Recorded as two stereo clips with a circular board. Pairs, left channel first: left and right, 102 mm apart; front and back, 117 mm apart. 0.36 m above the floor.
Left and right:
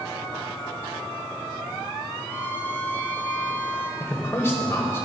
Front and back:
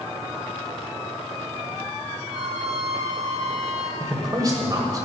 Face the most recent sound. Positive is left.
turn(degrees=140)